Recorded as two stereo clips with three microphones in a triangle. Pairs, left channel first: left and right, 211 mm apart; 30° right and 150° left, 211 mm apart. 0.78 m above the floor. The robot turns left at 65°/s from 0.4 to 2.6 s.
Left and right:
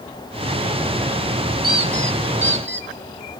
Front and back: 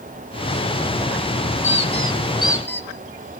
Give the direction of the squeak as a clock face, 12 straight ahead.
2 o'clock.